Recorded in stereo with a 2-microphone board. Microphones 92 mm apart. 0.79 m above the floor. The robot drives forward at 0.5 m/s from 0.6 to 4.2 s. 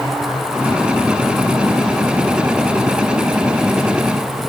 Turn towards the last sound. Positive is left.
No sound to turn to.